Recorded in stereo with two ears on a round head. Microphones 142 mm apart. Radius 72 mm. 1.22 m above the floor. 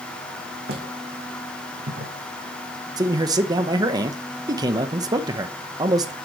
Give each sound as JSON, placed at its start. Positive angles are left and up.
{"t": 0.7, "sound": "footsteps", "side_deg": -70, "distance_m": 3.5}
{"t": 3.0, "sound": "a man speaking", "side_deg": -25, "distance_m": 1.1}